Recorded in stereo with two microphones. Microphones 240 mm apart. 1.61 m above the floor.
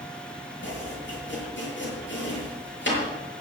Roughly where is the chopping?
Left.